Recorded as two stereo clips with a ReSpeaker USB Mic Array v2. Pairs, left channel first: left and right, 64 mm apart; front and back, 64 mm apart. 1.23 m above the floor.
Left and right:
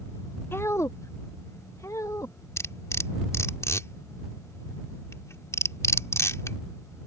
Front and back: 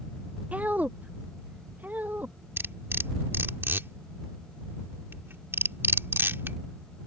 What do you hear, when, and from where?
0.5 s a woman speaking: 120° left
2.6 s cutlery clinking: 130° left